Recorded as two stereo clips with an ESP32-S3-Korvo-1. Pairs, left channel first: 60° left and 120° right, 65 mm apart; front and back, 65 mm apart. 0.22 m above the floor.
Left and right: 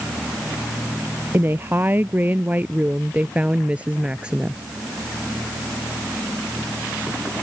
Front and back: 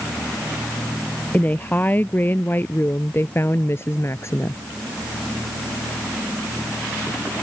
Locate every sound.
1.3 s a woman speaking: 65° right; by 4.6 s 45° right